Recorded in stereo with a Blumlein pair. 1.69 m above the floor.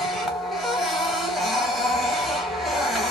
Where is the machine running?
Straight ahead, 0.8 m.